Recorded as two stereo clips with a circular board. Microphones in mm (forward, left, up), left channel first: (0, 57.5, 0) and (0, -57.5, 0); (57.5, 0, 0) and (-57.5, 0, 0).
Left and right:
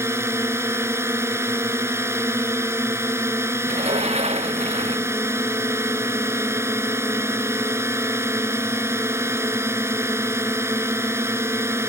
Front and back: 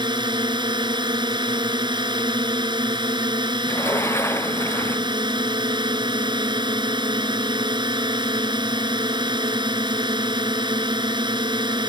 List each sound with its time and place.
0.0 s a drone: 150° right
3.7 s a sliding door: 65° right